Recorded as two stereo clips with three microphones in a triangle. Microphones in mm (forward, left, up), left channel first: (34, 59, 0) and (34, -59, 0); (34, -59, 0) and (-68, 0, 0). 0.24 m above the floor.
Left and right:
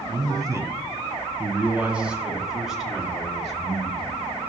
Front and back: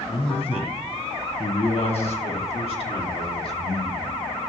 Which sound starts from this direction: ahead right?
A man speaking, at 0.1 s.